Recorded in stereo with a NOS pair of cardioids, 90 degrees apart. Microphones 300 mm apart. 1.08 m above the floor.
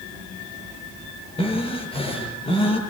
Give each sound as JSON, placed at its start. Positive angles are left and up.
{"t": 1.4, "sound": "breathing", "azimuth_deg": 20, "distance_m": 7.5}